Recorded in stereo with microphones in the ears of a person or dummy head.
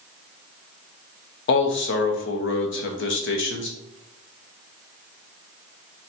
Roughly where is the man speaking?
Left.